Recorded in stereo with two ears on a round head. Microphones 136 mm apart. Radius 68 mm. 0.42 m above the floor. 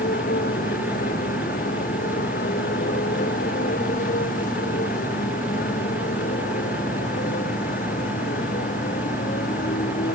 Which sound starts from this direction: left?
A motorcycle, at 0.0 s.